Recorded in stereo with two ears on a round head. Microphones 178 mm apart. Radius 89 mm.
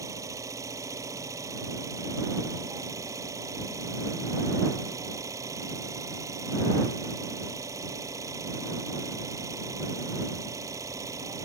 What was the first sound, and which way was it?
An engine running, 15° right (ahead or behind).